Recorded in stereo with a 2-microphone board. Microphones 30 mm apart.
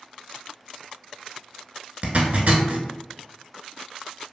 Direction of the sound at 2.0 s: 50° right (ahead or behind).